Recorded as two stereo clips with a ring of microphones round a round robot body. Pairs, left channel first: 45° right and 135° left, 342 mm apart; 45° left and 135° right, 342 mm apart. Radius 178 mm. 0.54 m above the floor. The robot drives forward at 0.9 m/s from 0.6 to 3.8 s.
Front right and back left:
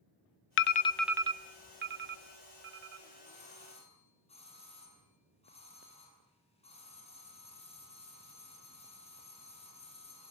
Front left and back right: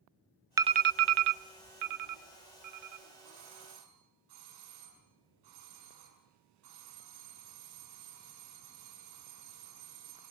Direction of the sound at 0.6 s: 60° right.